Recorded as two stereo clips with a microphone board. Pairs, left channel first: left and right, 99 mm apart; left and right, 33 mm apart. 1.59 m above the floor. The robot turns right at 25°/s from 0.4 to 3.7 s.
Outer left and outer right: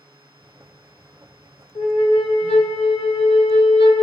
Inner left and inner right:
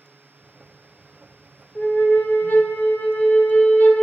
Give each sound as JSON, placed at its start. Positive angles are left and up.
{"t": 1.8, "sound": "a flute", "azimuth_deg": 65, "distance_m": 0.5}